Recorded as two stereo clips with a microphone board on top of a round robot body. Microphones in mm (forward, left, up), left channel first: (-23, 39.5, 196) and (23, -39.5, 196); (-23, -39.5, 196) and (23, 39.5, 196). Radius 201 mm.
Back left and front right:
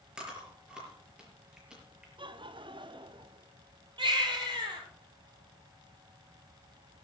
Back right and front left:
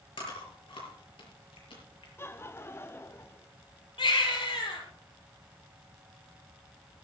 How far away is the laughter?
About 1.4 m.